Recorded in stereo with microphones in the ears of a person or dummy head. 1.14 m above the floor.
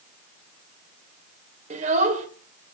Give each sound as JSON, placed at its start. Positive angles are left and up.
{"t": 1.7, "sound": "a child speaking", "side_deg": -35, "distance_m": 3.0}